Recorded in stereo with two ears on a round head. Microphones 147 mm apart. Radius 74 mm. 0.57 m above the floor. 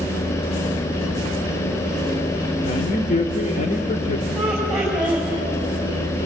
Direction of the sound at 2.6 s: 45° left (ahead or behind).